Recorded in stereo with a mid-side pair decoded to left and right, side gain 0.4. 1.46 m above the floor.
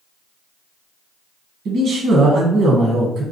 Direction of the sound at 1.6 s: 70° right.